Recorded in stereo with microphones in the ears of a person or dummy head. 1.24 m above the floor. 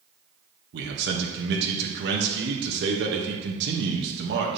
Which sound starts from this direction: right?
A man speaking, at 0.7 s.